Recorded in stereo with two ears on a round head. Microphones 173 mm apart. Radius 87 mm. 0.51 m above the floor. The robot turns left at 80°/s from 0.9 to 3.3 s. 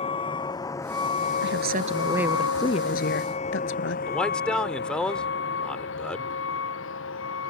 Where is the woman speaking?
105° right; by 4.0 s 105° left.